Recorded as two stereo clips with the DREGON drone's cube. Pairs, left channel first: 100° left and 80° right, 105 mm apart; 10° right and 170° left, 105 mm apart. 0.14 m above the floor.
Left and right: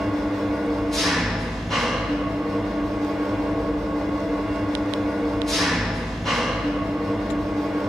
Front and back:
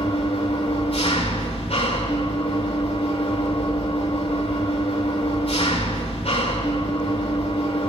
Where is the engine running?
15° left, 6.5 m.